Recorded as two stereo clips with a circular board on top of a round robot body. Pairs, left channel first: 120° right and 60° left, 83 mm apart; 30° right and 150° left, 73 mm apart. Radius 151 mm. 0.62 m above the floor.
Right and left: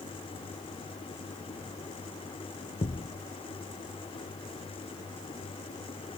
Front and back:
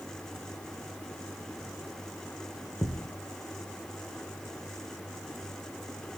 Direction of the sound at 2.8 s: 100° right.